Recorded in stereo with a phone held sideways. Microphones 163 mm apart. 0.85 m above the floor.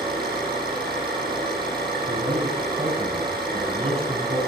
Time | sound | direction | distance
0.0 | an engine running | 30° right (ahead or behind) | 10 m
2.1 | a man speaking | 45° right (ahead or behind) | 6 m